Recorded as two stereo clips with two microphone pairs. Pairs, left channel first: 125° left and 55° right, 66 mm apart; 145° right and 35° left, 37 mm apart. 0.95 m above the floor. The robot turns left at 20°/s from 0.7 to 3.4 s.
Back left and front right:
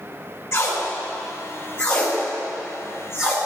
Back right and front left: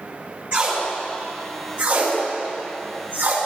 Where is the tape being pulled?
75° left, 4.5 m; by 3.4 s 20° left, 4.5 m.